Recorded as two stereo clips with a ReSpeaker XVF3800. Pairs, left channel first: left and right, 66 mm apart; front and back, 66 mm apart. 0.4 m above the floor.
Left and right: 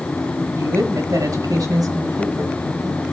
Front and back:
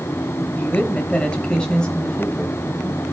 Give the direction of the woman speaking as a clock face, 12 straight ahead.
2 o'clock.